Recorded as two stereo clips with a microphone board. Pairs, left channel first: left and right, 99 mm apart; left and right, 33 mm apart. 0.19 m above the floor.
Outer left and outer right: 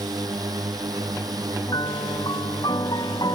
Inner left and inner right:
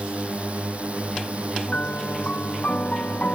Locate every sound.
0.0 s a drone: 40° right (ahead or behind)
1.7 s a piano: 45° left (ahead or behind)